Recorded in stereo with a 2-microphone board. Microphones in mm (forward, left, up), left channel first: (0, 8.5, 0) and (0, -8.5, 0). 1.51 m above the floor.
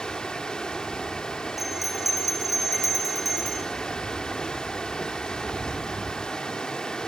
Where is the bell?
10° right (ahead or behind), 4.5 m.